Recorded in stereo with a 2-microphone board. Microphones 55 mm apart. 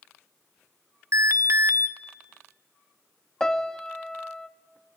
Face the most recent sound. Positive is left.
turn(degrees=10)  # may be behind; listen again after turning